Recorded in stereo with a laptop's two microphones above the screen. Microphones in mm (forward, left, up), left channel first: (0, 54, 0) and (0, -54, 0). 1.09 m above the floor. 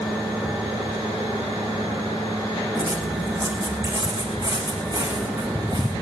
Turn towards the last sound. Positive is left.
turn(degrees=-40)  # may be behind; listen again after turning